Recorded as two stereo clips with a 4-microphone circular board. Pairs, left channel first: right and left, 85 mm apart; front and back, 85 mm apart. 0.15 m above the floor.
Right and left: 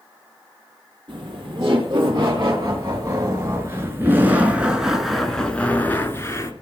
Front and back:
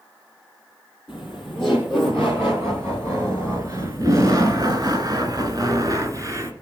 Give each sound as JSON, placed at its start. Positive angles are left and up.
{"t": 1.1, "sound": "laughter", "azimuth_deg": 115, "distance_m": 4.0}